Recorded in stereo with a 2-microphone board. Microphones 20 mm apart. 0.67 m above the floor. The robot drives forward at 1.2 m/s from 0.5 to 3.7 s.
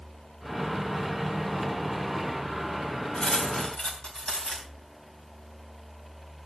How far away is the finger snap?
I don't hear a finger snap.